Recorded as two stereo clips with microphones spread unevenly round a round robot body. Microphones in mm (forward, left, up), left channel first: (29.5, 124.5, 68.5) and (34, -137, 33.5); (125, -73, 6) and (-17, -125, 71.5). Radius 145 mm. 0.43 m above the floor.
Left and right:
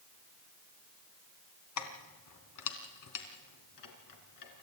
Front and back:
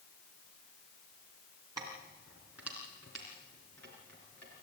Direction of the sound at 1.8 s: 120° left.